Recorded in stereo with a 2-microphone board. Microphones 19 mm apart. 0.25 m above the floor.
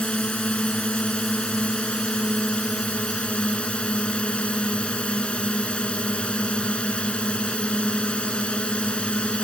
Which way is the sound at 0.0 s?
65° left (ahead or behind).